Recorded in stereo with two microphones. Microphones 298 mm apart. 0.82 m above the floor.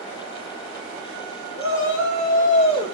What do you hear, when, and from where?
1.6 s a shout: 45° left (ahead or behind), 2.5 m; by 3.0 s 10° left (ahead or behind), 2 m